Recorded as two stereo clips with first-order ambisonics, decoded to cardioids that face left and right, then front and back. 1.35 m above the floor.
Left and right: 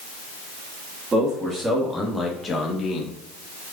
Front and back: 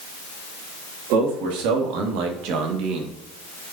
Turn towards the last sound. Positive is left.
turn(degrees=145)